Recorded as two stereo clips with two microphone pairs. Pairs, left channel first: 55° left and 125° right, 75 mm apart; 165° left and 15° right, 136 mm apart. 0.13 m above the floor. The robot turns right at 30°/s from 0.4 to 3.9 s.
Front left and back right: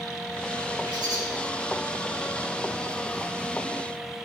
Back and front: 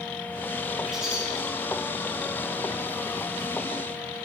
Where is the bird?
105° right, 4 m; by 1.2 s 95° right, 4 m.